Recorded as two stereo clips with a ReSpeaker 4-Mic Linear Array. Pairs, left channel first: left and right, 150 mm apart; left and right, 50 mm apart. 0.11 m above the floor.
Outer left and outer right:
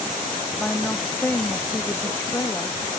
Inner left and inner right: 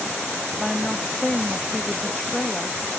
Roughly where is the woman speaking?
Centre.